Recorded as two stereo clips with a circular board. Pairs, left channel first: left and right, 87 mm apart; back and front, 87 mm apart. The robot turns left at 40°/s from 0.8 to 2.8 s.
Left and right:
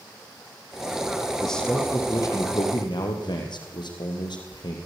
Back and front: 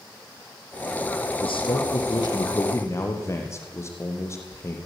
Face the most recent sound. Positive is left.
turn(degrees=120)